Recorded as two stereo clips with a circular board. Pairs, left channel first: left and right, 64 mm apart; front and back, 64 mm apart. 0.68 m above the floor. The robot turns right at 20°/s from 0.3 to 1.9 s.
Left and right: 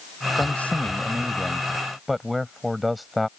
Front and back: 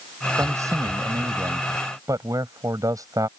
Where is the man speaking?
150° left; by 3.3 s straight behind.